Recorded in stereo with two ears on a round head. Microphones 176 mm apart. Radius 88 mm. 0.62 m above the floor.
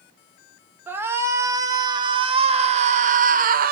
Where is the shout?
10° right (ahead or behind), 2 m; by 3.7 s 50° right (ahead or behind), 1.5 m.